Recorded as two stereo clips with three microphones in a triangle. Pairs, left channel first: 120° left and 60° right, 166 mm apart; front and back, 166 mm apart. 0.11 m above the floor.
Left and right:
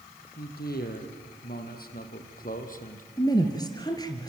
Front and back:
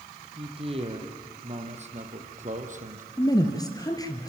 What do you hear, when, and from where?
0.4 s a man speaking: 125° left, 4.5 m; by 3.1 s 150° left, 4 m
3.2 s a woman speaking: 60° left, 2 m